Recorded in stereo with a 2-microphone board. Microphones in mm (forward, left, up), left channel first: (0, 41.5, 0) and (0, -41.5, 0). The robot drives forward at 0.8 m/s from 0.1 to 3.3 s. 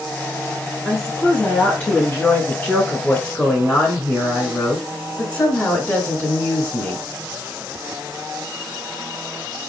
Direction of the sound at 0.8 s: 15° left (ahead or behind).